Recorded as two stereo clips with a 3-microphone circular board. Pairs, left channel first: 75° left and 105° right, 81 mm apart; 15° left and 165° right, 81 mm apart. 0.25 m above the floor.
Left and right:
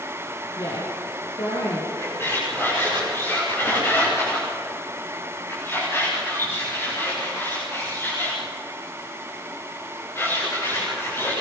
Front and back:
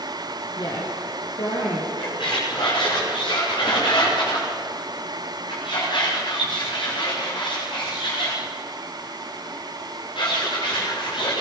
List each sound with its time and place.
0.6 s a woman speaking: 45° left, 5 m
2.0 s a squeak: 15° left, 9.5 m